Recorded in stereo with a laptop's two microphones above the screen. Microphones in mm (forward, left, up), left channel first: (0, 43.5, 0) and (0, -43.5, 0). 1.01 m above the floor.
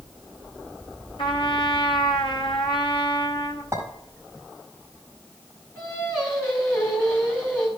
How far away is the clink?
About 4.5 m.